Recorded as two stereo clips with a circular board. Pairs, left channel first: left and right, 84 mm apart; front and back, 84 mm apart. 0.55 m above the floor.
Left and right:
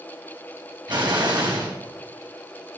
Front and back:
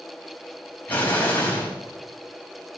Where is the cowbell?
No cowbell in this recording.